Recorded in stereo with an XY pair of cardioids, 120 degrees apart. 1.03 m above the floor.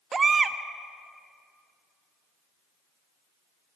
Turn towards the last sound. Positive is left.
turn(degrees=-25)